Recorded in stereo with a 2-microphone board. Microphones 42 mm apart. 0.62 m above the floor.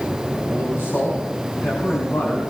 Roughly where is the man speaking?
Left.